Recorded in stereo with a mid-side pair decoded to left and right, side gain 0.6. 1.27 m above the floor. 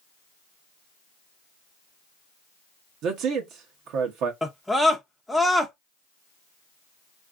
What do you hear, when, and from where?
3.0 s a man speaking: 65° right, 0.7 m
4.4 s a scream: 5° left, 0.6 m